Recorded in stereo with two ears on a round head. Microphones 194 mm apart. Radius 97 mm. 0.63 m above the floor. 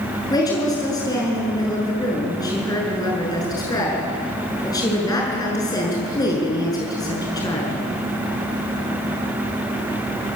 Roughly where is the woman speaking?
Centre.